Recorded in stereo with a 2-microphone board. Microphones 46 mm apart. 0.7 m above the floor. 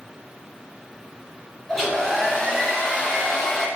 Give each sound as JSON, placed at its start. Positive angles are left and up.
{"t": 1.7, "sound": "a hair dryer", "side_deg": 0, "distance_m": 1.9}